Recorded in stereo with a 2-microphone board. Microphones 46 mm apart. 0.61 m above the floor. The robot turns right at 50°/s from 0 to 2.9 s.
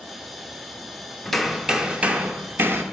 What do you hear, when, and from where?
1.2 s hammering: 175° left, 1.0 m; by 2.8 s 105° right, 1.0 m